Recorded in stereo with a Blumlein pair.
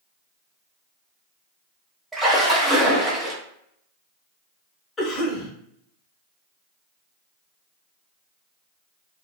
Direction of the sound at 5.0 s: 20° left.